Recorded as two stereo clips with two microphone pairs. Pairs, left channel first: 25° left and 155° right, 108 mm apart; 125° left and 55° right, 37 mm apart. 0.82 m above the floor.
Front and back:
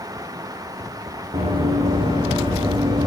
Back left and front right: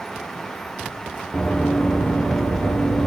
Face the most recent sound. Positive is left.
turn(degrees=165)